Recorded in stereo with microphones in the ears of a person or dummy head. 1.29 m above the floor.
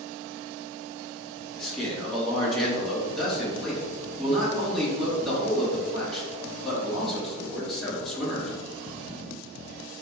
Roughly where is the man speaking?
Centre.